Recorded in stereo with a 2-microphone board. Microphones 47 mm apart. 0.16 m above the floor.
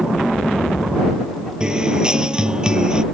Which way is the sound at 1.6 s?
20° right (ahead or behind).